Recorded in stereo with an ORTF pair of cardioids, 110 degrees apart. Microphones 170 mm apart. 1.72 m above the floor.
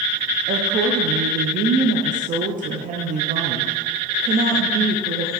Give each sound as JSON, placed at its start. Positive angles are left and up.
{"t": 0.5, "sound": "a woman speaking", "azimuth_deg": -55, "distance_m": 0.8}